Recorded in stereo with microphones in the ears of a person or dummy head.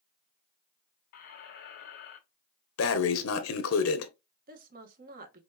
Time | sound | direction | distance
1.1 | a squeak | 65° left (ahead or behind) | 1.6 m
2.8 | breathing | 85° left | 0.9 m
4.5 | a woman speaking | 55° right (ahead or behind) | 1.4 m